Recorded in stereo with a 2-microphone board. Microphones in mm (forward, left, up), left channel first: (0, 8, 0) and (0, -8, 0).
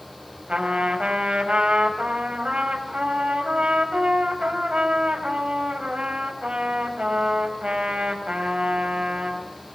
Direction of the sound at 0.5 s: 85° right.